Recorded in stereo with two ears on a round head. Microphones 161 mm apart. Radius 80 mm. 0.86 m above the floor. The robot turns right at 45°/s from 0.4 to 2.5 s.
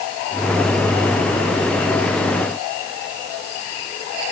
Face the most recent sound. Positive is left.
No sound to turn to.